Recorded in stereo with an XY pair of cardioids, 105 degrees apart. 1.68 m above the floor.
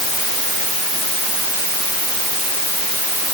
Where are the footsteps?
I don't hear footsteps.